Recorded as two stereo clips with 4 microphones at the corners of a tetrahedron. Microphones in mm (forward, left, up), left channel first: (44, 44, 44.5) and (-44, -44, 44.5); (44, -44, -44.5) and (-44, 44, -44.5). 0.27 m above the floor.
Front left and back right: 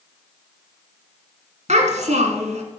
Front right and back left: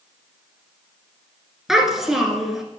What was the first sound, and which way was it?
A child speaking, 140° right.